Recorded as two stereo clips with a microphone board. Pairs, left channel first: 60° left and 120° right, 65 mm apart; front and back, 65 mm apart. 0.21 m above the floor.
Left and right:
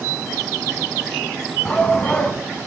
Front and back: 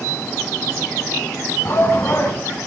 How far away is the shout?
About 2 m.